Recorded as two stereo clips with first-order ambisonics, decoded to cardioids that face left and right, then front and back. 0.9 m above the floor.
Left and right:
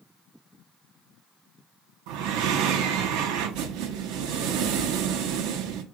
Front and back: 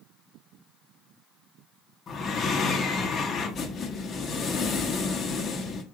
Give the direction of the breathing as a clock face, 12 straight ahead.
2 o'clock.